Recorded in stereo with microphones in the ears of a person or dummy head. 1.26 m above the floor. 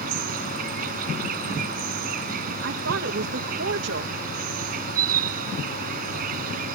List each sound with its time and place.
0.0 s an insect: 55° right (ahead or behind)
2.6 s a woman speaking: 70° right (ahead or behind)